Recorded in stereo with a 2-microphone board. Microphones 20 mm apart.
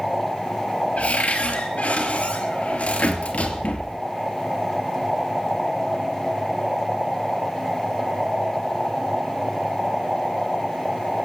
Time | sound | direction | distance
1.0 | a cupboard door | 85° left | 2.5 m